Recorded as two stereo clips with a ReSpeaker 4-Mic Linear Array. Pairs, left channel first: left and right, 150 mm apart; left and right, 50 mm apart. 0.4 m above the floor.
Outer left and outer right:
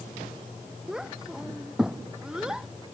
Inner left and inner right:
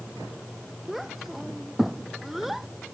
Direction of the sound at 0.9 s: 5° right (ahead or behind).